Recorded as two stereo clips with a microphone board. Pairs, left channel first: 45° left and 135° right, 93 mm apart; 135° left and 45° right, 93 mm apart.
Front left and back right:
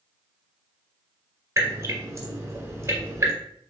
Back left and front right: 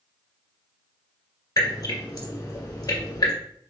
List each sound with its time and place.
1.6 s dripping: 175° left, 1.8 m